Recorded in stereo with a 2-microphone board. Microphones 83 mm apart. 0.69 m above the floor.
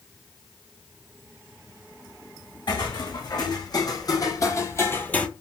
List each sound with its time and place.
2.7 s footsteps: 55° left (ahead or behind), 2 m; by 5.3 s 15° left (ahead or behind), 0.7 m